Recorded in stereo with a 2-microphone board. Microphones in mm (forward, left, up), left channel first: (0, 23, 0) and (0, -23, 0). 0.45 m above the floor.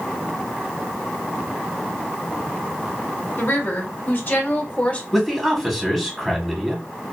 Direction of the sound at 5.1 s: Centre (ahead or behind).